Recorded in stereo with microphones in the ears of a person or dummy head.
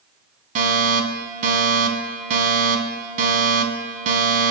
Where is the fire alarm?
45° right (ahead or behind), 2.5 m.